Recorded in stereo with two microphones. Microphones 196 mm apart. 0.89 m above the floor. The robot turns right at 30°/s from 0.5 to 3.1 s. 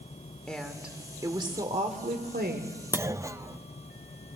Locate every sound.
0.5 s a woman speaking: 175° left, 2 m; by 2.8 s 115° right, 2 m
2.9 s a clunk: 10° right (ahead or behind), 0.5 m; by 3.6 s 15° right (ahead or behind), 0.5 m